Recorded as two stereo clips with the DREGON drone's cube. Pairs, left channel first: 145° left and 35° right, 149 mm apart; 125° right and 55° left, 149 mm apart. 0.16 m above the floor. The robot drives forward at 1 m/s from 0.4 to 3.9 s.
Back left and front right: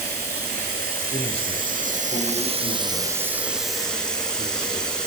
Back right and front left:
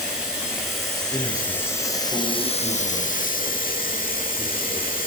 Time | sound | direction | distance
0.0 | running water | 30° right | 3 m
1.1 | a man speaking | 175° left | 1.5 m